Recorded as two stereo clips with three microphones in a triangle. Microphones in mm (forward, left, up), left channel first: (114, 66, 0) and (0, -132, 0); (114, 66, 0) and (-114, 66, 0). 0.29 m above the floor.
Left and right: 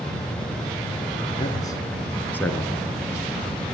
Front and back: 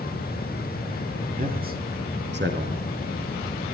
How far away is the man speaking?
About 4 m.